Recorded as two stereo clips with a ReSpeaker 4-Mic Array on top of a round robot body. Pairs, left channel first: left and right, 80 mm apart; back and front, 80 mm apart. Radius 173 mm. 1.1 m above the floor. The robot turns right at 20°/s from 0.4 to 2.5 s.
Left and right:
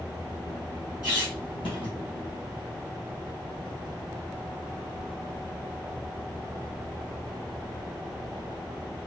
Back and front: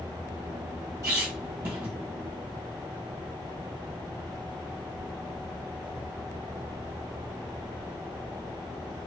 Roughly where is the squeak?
Ahead left.